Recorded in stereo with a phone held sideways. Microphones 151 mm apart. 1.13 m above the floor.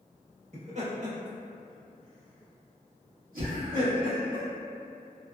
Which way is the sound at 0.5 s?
50° right (ahead or behind).